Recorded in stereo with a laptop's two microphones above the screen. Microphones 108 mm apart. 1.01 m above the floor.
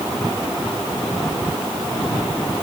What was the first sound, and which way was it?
Only background noise.